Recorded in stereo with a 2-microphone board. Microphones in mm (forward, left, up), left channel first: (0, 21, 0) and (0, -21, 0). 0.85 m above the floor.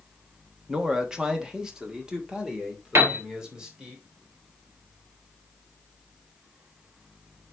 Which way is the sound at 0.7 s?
15° right (ahead or behind).